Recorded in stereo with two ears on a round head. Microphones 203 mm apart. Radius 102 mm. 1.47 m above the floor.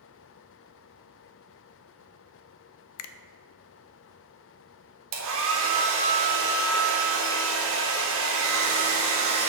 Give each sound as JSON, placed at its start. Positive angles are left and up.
{"t": 3.0, "sound": "a finger snap", "side_deg": 70, "distance_m": 0.6}
{"t": 5.1, "sound": "a hair dryer", "side_deg": -65, "distance_m": 1.8}